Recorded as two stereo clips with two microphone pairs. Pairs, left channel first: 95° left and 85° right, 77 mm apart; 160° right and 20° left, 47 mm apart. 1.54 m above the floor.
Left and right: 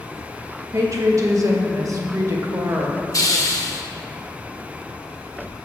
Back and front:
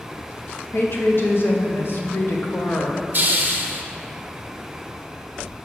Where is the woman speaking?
125° right, 1.0 m.